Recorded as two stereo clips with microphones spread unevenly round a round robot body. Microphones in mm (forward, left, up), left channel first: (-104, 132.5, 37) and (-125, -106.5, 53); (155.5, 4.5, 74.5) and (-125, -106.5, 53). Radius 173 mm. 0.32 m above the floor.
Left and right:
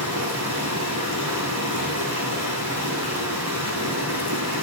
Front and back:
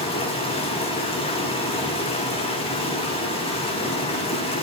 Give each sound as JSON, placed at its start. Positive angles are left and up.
{"t": 0.0, "sound": "running water", "azimuth_deg": -50, "distance_m": 9.0}